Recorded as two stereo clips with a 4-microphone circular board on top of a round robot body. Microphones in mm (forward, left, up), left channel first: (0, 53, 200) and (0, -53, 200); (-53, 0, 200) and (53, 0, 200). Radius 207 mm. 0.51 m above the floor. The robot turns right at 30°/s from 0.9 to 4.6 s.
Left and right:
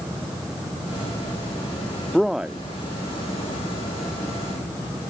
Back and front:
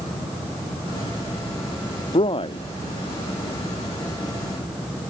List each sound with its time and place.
2.1 s a man speaking: straight behind; by 2.6 s 165° right